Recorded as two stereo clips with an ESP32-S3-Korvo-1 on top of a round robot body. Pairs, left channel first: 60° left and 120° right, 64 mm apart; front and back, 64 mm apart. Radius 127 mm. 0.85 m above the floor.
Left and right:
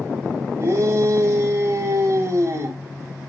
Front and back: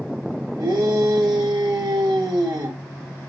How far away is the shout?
About 3.5 m.